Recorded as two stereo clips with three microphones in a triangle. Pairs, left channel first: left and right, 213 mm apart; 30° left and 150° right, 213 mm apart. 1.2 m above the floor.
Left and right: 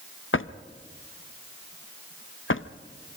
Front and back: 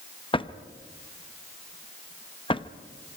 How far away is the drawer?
About 0.7 m.